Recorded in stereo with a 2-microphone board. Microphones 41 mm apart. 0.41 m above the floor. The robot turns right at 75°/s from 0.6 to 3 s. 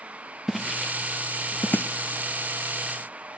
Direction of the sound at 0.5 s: 5° right (ahead or behind).